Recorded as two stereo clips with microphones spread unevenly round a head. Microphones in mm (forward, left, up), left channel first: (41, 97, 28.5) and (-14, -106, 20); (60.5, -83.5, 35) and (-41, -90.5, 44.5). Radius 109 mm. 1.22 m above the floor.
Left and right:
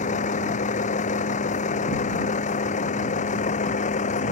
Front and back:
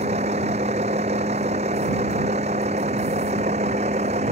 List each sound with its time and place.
0.0 s a vehicle: 135° left